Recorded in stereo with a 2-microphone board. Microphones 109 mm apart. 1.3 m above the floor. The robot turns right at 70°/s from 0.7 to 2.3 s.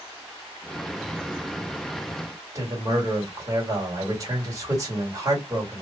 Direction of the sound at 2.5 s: 30° right (ahead or behind).